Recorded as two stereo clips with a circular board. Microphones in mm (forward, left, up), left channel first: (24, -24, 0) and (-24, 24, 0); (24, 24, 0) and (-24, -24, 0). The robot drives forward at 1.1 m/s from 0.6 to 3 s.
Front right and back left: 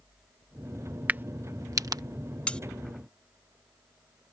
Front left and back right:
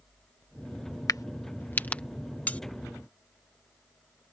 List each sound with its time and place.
1.1 s a crack: 70° left; by 2.0 s 115° left
2.5 s cutlery clinking: 5° left; by 2.6 s 10° left